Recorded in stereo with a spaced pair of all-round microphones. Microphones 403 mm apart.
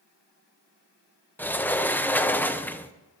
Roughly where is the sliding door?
Centre.